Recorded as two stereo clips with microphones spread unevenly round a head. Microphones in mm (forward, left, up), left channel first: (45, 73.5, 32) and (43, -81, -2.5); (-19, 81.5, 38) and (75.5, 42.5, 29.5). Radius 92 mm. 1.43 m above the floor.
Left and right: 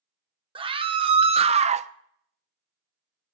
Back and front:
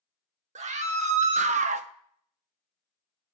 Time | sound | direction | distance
0.6 | a scream | 35° right | 1.7 m